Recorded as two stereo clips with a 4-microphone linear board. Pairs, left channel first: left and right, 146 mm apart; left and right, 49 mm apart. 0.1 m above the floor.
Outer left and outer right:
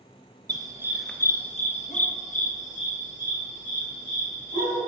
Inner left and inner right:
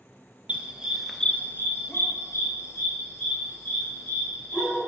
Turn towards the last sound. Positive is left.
turn(degrees=55)  # may be behind; listen again after turning